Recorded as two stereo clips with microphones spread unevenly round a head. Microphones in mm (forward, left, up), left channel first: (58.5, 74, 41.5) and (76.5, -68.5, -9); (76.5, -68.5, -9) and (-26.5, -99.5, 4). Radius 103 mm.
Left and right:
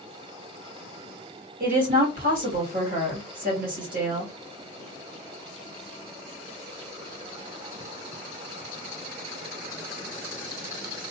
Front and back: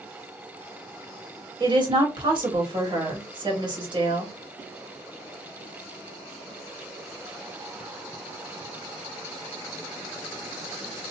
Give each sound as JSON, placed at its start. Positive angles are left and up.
{"t": 1.6, "sound": "a woman speaking", "azimuth_deg": -120, "distance_m": 1.7}